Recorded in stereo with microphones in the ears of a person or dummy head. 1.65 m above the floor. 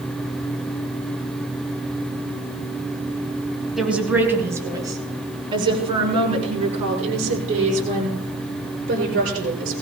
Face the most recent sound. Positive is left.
turn(degrees=-40)  # may be behind; listen again after turning